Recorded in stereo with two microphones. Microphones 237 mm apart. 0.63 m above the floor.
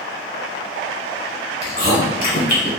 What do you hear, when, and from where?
1.6 s chewing: 35° left (ahead or behind), 1.3 m